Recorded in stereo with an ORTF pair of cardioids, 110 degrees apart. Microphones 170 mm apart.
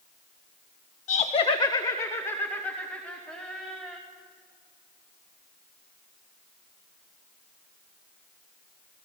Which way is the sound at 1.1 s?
50° left.